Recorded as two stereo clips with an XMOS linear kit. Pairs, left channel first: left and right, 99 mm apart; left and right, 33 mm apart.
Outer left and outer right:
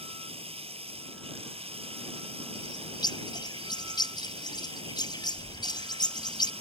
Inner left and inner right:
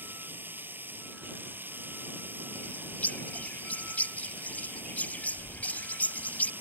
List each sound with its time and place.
0.0 s running water: 75° right (ahead or behind)
2.5 s a bird: 45° left (ahead or behind)